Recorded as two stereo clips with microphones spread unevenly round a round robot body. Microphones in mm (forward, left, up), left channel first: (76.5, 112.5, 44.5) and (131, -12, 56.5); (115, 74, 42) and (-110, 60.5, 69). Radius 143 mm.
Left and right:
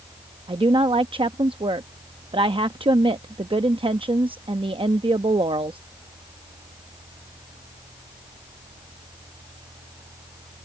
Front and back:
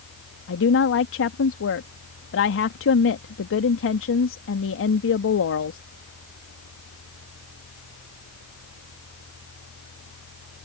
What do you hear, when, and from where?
0.5 s a woman speaking: 15° right